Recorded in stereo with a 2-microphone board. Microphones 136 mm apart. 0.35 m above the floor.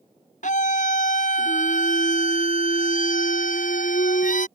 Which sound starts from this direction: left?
A scream, at 0.4 s.